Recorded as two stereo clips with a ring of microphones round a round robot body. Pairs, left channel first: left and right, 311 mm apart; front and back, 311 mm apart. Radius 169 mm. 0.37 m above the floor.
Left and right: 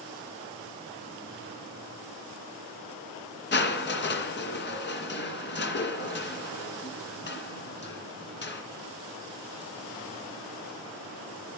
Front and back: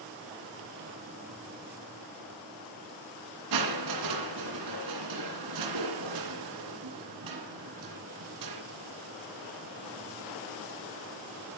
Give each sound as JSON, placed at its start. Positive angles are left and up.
{"t": 3.5, "sound": "crushing", "azimuth_deg": 145, "distance_m": 2.5}